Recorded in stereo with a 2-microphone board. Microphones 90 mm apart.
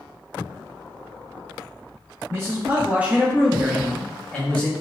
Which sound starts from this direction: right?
A man speaking, at 2.3 s.